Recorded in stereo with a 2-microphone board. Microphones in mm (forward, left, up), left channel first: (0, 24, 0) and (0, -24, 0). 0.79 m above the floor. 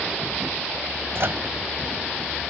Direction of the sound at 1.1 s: 55° right (ahead or behind).